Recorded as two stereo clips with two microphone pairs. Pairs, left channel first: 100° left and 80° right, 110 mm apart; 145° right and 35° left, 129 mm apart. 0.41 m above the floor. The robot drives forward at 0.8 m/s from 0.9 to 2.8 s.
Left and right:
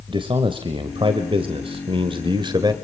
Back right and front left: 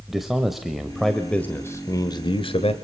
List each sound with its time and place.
0.1 s a man speaking: 50° right, 1.6 m; by 2.7 s 120° right, 1.5 m